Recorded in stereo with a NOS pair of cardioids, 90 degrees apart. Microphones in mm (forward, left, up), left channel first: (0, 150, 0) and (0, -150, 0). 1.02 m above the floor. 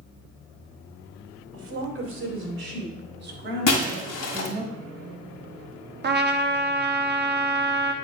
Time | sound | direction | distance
1.5 | a woman speaking | 50° right | 3 m
3.7 | breaking glass | 65° left | 2.0 m
6.0 | a trumpet | 35° right | 0.9 m